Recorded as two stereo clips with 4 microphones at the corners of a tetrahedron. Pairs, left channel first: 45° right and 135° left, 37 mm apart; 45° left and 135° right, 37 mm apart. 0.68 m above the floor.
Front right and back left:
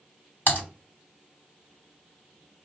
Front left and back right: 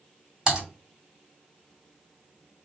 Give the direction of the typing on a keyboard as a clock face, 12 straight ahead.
2 o'clock.